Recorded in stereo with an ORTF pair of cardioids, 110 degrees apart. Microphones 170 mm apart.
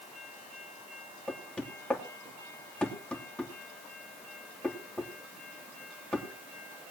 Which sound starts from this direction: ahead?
Knocking, at 1.3 s.